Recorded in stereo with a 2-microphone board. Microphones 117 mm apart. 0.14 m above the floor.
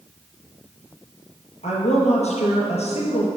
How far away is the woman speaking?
About 4 m.